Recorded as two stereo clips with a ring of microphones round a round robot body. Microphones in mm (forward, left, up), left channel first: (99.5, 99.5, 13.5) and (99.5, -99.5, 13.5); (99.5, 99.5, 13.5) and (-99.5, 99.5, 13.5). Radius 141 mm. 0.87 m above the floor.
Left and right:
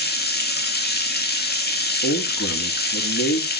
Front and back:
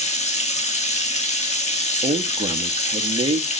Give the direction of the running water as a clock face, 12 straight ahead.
10 o'clock.